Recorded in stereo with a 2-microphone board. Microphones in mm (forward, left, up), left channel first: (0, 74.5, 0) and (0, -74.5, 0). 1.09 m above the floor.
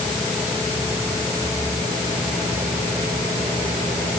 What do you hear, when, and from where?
Only background noise.